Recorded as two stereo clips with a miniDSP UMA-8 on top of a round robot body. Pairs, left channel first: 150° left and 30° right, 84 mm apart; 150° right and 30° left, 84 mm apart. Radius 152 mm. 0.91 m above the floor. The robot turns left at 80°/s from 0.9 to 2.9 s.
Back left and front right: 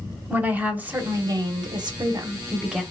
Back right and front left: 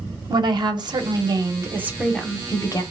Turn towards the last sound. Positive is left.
turn(degrees=-125)